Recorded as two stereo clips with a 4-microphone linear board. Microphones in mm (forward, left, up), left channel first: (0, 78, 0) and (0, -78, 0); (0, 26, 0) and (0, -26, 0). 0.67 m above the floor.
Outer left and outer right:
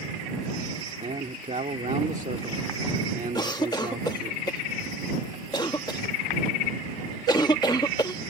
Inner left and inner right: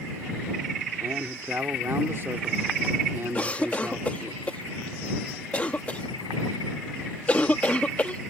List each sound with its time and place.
1.0 s a man speaking: 55° right (ahead or behind)
3.4 s a cough: 25° left (ahead or behind)